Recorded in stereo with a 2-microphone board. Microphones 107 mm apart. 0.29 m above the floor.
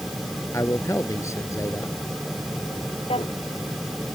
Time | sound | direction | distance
0.5 | a man speaking | 30° left (ahead or behind) | ?
3.1 | a drawer | 75° left (ahead or behind) | ?